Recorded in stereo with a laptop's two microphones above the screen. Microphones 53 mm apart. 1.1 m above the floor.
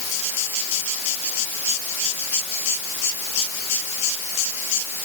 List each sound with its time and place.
Only background noise.